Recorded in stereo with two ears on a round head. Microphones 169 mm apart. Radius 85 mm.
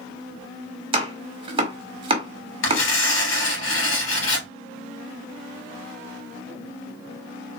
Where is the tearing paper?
75° left (ahead or behind), 3 m.